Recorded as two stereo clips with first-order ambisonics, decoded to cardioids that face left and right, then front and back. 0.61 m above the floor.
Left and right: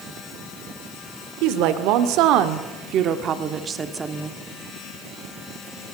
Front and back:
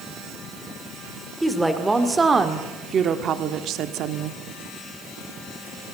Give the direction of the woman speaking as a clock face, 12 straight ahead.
3 o'clock.